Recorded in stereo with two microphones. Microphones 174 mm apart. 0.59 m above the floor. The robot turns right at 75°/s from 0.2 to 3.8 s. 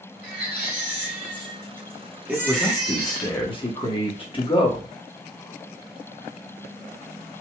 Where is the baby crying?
35° left, 2.5 m; by 3.3 s 95° right, 2.5 m.